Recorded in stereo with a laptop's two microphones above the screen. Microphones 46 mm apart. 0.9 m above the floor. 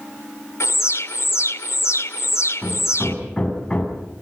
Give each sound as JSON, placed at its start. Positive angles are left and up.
{"t": 0.6, "sound": "an alarm", "side_deg": 80, "distance_m": 1.9}
{"t": 2.6, "sound": "hammering", "side_deg": 15, "distance_m": 7.5}